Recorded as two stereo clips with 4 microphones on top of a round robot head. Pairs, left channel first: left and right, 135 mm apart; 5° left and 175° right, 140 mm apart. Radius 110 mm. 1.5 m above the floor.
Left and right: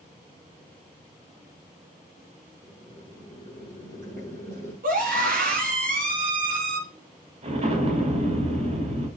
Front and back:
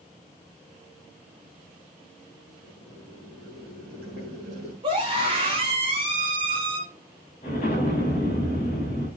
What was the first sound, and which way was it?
Boiling, 140° right.